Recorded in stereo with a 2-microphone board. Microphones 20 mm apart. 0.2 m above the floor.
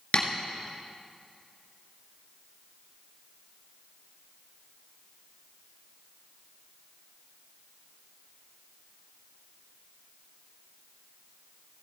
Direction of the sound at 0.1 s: 60° left (ahead or behind).